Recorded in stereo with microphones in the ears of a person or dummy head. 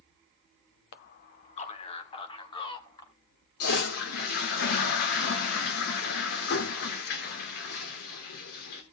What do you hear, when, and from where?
0.9 s a man speaking: 60° left (ahead or behind), 1.3 m; by 3.1 s 25° left (ahead or behind), 3.5 m
3.6 s a toilet flushing: 60° left (ahead or behind), 2.5 m